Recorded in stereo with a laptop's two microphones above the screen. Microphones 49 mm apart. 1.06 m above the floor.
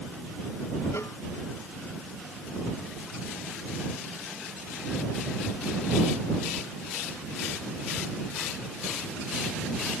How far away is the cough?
I don't hear a cough.